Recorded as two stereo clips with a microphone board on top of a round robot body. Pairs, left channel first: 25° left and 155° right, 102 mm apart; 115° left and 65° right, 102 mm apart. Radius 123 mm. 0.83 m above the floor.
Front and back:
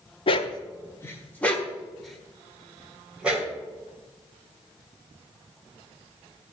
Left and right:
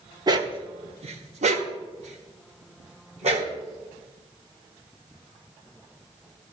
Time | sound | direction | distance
0.3 | a dog barking | 15° right | 0.8 m